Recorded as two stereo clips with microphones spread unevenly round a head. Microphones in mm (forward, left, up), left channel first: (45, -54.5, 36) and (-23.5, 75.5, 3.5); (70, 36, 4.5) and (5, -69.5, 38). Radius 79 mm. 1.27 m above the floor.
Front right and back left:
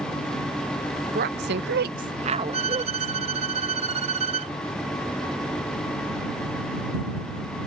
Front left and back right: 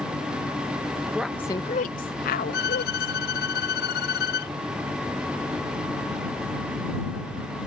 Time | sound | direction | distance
1.1 | a woman speaking | 155° left | ?
2.5 | a violin | 60° left | ?